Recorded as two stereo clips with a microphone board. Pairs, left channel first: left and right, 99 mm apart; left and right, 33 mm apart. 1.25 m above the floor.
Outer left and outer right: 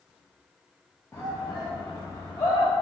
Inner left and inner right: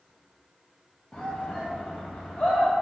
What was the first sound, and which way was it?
A shout, 25° left (ahead or behind).